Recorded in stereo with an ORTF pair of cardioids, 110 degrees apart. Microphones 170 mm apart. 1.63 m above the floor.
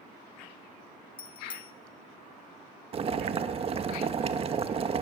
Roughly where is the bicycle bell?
Ahead left.